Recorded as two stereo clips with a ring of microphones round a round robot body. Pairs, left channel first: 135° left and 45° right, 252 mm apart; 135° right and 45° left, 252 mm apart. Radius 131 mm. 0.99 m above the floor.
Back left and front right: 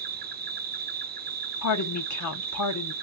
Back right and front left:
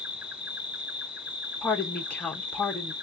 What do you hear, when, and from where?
0.0 s an insect: 40° right, 0.8 m
1.6 s a woman speaking: 140° left, 1.0 m